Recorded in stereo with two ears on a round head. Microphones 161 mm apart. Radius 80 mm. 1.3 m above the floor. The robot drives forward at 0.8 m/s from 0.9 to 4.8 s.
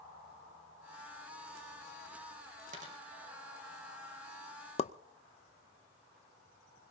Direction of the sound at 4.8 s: 35° left (ahead or behind).